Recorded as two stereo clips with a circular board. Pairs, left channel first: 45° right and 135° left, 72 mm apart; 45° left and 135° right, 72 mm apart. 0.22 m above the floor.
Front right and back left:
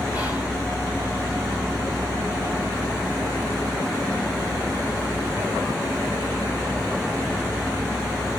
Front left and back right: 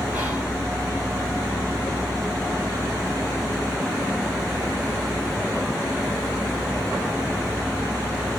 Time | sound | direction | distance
0.1 | whispering | 175° left | 1.8 m